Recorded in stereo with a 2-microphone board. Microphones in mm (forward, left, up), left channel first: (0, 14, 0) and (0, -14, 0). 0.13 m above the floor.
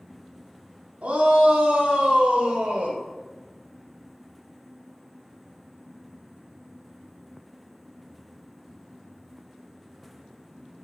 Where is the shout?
65° right (ahead or behind), 3.5 m; by 3.0 s 70° right (ahead or behind), 3.5 m.